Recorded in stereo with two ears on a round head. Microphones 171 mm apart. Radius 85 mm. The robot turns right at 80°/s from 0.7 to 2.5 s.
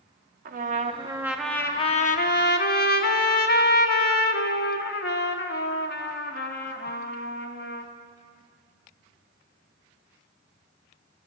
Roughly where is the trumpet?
Ahead right.